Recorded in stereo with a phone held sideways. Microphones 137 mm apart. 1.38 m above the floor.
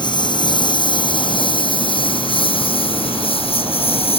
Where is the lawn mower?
35° left (ahead or behind); by 4.2 s 45° left (ahead or behind).